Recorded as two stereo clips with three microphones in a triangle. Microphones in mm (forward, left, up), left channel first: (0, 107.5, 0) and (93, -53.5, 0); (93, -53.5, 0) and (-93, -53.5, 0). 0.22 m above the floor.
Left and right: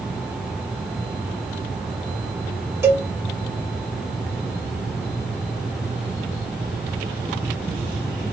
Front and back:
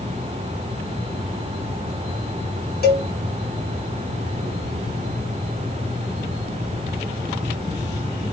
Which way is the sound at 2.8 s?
15° left.